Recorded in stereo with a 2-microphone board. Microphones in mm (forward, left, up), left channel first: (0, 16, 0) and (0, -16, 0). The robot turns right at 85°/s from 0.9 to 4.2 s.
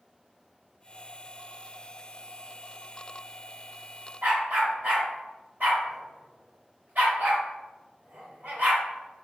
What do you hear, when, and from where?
4.2 s a dog barking: 70° right (ahead or behind), 1.8 m